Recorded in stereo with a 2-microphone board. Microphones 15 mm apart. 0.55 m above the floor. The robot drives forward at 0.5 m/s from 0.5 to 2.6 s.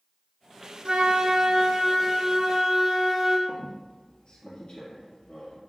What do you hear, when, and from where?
0.8 s a flute: 55° right (ahead or behind), 0.7 m; by 3.4 s 25° right (ahead or behind), 1.2 m
3.5 s a squeak: 55° left (ahead or behind), 2.5 m